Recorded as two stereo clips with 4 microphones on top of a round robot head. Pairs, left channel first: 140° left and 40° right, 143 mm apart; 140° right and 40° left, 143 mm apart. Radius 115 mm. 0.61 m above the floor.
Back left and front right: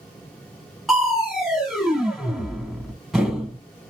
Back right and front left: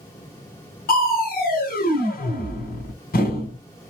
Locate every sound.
0.9 s crushing: 130° right, 2 m